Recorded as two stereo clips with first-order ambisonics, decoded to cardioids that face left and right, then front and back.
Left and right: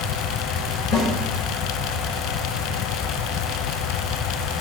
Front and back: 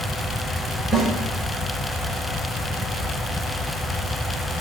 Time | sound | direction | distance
0.9 | a snare drum | 115° left | 1.7 m